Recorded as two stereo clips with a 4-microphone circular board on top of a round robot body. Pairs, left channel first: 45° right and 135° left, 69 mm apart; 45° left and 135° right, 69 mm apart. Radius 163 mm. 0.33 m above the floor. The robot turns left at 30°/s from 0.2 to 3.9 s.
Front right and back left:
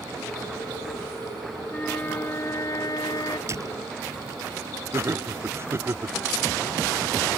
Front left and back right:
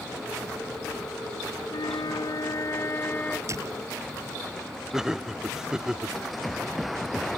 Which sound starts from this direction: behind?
A door slam, at 3.5 s.